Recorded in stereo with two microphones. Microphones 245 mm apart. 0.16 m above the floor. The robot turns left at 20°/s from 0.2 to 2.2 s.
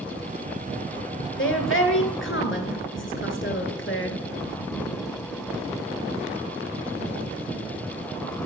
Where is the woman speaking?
55° left (ahead or behind), 2 m.